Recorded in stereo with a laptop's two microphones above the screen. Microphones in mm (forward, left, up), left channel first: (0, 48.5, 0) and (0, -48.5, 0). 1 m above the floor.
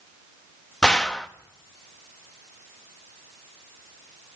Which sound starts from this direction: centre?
A gunshot, at 0.8 s.